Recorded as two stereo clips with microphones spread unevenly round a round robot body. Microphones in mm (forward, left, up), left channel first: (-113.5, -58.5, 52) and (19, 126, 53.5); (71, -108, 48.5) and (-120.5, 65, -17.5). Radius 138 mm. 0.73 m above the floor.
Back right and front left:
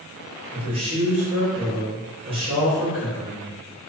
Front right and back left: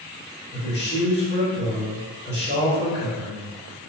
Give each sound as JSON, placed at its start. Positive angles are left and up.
{"t": 0.5, "sound": "a man speaking", "azimuth_deg": 5, "distance_m": 1.0}